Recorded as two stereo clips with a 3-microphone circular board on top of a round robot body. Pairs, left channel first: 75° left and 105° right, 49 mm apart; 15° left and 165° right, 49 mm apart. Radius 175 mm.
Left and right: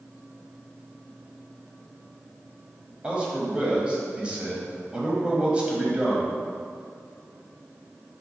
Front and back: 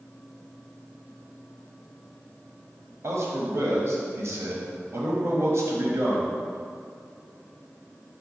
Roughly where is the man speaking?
Behind.